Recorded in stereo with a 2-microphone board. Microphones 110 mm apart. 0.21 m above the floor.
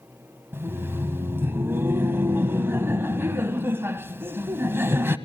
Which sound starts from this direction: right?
Laughter, at 0.5 s.